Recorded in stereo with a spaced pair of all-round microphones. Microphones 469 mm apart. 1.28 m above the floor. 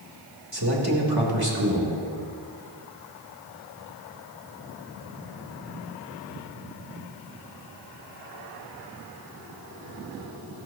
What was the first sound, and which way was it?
A man speaking, 50° right (ahead or behind).